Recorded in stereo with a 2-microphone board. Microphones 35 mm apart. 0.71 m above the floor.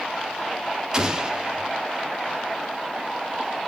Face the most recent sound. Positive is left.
turn(degrees=-15)  # may be behind; listen again after turning